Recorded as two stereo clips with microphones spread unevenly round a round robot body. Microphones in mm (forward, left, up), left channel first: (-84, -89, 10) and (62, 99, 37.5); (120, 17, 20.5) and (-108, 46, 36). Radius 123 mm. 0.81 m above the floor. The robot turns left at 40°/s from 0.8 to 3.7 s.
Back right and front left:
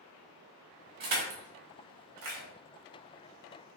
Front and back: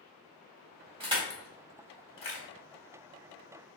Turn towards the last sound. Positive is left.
turn(degrees=0)